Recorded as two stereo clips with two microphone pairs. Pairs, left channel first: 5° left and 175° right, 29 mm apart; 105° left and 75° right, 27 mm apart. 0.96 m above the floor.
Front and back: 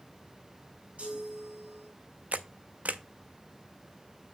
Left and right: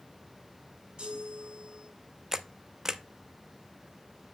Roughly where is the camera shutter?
Behind right.